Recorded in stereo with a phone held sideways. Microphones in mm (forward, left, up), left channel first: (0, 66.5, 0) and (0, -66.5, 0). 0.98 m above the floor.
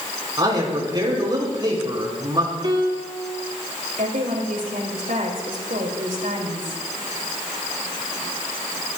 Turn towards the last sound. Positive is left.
turn(degrees=-85)